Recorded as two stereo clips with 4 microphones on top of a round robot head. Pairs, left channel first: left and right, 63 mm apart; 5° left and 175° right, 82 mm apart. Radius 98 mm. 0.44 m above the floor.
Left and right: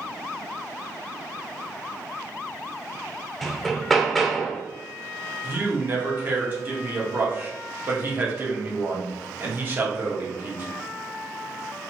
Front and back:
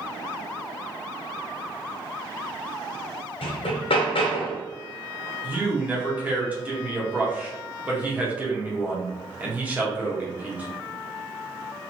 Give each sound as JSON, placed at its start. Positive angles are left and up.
{"t": 3.4, "sound": "hammering", "azimuth_deg": 5, "distance_m": 0.6}
{"t": 5.4, "sound": "a man speaking", "azimuth_deg": -120, "distance_m": 1.1}